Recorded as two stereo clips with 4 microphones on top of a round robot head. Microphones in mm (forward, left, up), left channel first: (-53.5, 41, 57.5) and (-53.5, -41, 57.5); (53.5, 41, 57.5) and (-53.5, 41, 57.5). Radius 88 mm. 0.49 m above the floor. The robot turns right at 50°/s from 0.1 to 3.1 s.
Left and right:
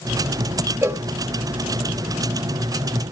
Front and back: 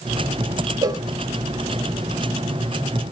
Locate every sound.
0.8 s a cowbell: 145° right, 0.8 m; by 1.0 s 135° right, 0.8 m